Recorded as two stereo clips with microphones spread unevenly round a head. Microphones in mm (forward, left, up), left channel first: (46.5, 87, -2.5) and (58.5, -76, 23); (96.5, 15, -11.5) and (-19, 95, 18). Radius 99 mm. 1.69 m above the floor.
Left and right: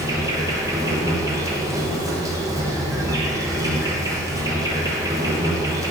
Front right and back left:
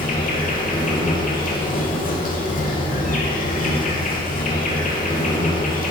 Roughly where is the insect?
Ahead.